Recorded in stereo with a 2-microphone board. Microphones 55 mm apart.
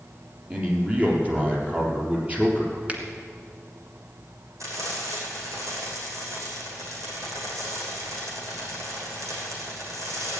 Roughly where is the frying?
Right.